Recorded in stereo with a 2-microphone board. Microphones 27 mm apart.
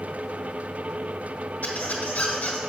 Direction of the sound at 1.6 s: 70° left (ahead or behind).